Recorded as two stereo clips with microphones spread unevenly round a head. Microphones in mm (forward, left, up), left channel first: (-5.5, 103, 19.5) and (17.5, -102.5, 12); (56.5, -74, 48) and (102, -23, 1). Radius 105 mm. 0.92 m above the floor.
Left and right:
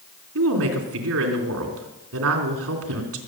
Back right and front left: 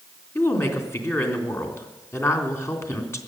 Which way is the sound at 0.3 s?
65° right.